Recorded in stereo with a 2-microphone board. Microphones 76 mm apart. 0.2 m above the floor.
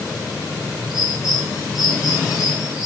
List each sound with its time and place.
0.9 s a bird: 5° right (ahead or behind), 3.5 m